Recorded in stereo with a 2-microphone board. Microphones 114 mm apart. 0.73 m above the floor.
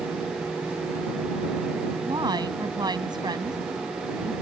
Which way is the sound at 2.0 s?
40° right (ahead or behind).